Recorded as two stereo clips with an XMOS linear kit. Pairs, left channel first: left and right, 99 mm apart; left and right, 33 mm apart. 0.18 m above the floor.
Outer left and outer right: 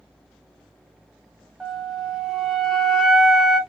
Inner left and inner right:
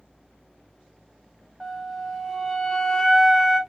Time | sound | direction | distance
1.6 | a flute | 5° right (ahead or behind) | 1.0 m